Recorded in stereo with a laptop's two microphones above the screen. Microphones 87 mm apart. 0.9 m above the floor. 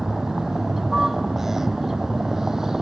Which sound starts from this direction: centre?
A vehicle, at 0.0 s.